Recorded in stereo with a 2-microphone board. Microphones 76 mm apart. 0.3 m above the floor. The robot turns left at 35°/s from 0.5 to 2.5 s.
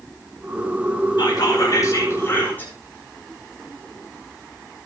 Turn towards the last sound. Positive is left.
turn(degrees=25)